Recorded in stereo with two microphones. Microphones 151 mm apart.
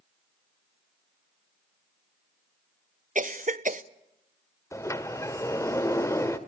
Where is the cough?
60° right (ahead or behind), 1.0 m.